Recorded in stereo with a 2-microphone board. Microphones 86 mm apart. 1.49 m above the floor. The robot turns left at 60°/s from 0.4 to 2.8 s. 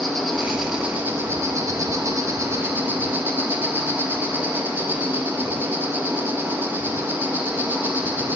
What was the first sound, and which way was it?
An insect, 5° left.